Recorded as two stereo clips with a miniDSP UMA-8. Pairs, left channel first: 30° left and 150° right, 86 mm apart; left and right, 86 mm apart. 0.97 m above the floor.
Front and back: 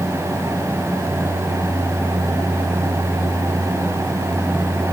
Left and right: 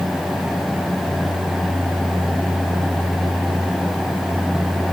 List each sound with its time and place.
Only background noise.